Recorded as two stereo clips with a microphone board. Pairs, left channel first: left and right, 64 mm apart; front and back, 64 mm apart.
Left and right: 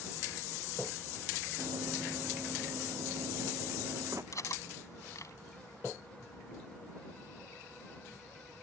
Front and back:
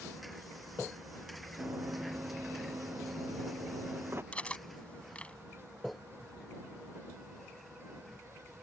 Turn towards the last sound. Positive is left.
turn(degrees=65)